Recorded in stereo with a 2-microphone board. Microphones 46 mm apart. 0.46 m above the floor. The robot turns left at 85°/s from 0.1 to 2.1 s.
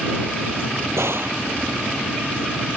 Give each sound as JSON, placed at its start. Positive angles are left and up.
{"t": 1.0, "sound": "a gunshot", "azimuth_deg": -100}